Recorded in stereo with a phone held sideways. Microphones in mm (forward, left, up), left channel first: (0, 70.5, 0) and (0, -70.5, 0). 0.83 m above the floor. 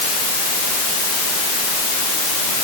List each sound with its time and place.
Only background noise.